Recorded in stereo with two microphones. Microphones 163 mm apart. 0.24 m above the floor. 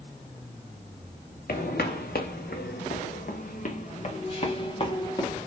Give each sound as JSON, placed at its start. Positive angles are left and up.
{"t": 1.5, "sound": "footsteps", "side_deg": 75, "distance_m": 1.5}